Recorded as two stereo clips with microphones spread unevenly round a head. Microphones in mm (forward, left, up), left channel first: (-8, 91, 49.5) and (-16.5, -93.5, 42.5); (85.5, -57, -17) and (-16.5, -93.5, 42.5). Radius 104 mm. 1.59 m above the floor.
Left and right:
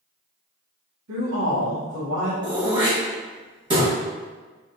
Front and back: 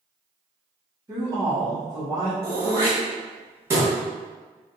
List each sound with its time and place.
1.1 s a woman speaking: 110° right, 1.5 m
2.4 s throat clearing: 155° right, 1.2 m